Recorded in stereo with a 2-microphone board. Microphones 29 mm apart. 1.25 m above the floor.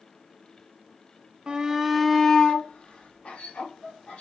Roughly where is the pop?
I don't hear a pop.